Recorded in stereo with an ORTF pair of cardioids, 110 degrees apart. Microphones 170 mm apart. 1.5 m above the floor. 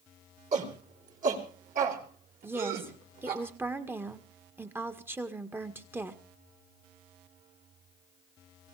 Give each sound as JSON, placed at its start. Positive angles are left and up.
{"t": 0.5, "sound": "a shout", "azimuth_deg": -45, "distance_m": 4.5}
{"t": 2.4, "sound": "a woman speaking", "azimuth_deg": -15, "distance_m": 1.8}